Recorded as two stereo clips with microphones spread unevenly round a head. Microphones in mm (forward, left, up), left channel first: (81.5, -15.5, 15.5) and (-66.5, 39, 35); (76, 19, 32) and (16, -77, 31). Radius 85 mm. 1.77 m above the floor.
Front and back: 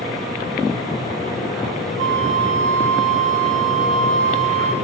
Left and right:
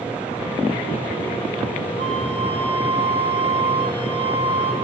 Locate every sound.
2.0 s a flute: 115° left, 0.8 m